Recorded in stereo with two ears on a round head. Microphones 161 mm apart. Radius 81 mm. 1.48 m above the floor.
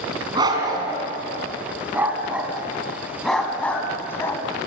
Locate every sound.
0.3 s a dog barking: 25° right (ahead or behind), 3.5 m; by 4.4 s 15° left (ahead or behind), 2.5 m